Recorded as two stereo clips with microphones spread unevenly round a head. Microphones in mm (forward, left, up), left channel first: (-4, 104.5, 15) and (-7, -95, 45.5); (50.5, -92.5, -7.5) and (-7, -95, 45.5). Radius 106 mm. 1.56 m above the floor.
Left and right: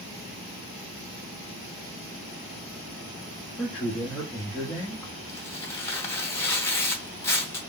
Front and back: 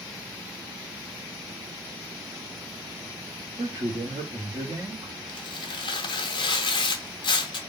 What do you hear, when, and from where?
3.6 s a man speaking: 170° left, 0.9 m
5.3 s tearing paper: 5° left, 0.5 m